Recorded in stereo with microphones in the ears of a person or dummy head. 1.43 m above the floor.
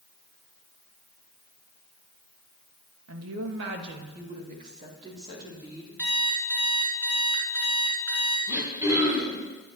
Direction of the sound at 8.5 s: 20° right (ahead or behind).